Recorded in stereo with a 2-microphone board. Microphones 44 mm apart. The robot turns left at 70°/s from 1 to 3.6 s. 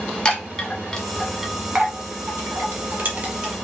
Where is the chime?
15° left (ahead or behind), 1.3 m; by 3.5 s 20° right (ahead or behind), 1.3 m.